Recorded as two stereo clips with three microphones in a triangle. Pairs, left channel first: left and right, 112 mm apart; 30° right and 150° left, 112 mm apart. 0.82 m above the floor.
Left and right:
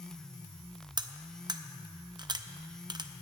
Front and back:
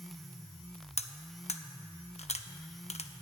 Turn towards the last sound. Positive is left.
turn(degrees=-40)